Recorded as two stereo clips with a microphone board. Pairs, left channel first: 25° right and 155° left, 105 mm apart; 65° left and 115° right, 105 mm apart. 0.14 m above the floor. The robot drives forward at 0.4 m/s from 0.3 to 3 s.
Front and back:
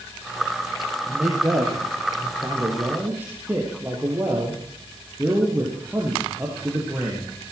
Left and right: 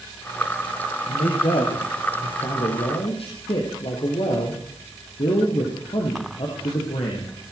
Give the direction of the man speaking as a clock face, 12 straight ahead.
9 o'clock.